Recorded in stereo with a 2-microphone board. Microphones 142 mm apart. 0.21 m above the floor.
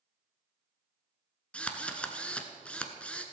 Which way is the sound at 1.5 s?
10° left (ahead or behind).